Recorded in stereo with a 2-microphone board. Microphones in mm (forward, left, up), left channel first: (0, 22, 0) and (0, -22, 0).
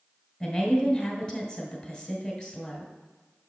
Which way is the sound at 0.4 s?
20° left (ahead or behind).